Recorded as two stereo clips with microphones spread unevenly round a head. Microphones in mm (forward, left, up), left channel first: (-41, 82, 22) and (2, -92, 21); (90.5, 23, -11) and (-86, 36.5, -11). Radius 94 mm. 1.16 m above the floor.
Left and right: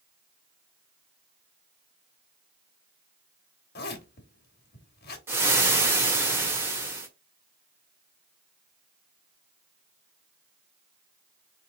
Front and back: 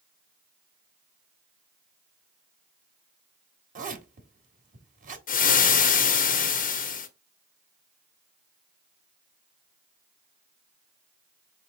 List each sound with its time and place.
3.8 s a zipper: 135° left, 1.2 m
5.3 s frying: straight ahead, 0.9 m